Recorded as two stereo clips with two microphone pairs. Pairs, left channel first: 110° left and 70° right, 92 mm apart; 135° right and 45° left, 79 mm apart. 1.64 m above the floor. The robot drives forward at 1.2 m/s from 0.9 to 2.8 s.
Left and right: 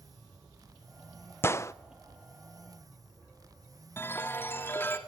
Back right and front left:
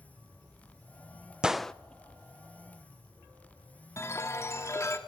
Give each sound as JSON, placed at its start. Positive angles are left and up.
{"t": 1.4, "sound": "a gunshot", "azimuth_deg": 105, "distance_m": 0.6}
{"t": 4.0, "sound": "a chime", "azimuth_deg": 175, "distance_m": 2.5}